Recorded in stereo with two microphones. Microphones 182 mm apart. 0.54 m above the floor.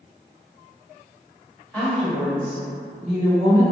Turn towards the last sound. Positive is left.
turn(degrees=-15)  # may be behind; listen again after turning